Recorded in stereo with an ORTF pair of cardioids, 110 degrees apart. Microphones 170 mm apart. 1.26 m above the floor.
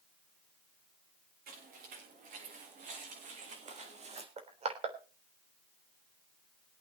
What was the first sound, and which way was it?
Footsteps, 65° right.